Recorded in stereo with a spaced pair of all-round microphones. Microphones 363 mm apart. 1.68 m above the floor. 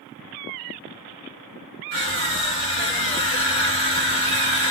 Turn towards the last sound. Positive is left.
turn(degrees=-30)  # may be behind; listen again after turning